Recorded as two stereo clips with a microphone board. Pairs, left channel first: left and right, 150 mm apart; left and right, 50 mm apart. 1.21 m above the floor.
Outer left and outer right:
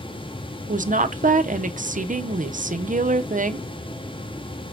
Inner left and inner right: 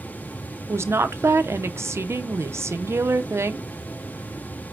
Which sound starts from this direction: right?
A woman speaking, at 0.7 s.